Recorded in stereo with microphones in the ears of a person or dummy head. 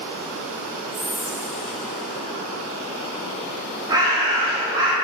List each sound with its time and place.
0.9 s whispering: centre (ahead or behind), 0.6 m
3.9 s a bird: 20° right (ahead or behind), 1.5 m